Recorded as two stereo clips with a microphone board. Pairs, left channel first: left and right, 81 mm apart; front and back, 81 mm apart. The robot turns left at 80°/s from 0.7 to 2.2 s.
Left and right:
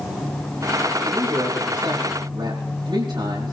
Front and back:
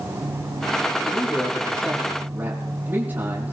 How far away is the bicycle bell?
No bicycle bell in this recording.